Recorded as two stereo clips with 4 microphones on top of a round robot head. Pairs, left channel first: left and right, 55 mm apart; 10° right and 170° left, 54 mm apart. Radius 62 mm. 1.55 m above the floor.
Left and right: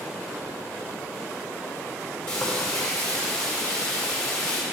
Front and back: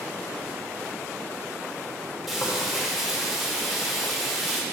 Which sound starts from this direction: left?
Frying, at 2.3 s.